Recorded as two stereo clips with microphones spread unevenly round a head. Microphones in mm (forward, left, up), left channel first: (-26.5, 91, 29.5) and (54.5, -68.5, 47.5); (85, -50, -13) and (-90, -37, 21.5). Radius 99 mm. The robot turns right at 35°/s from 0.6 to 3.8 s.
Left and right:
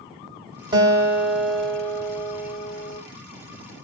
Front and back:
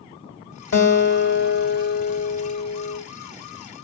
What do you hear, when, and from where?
0.7 s a guitar: straight ahead, 1.3 m; by 3.0 s 80° left, 1.3 m